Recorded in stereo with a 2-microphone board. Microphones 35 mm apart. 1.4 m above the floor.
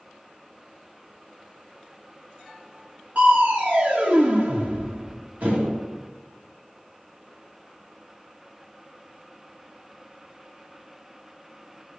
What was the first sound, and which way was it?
Crushing, 45° right (ahead or behind).